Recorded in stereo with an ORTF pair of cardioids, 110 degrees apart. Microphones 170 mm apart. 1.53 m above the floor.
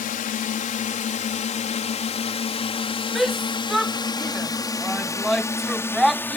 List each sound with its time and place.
0.0 s a drone: 55° left; by 6.4 s 10° left
3.1 s a shout: straight ahead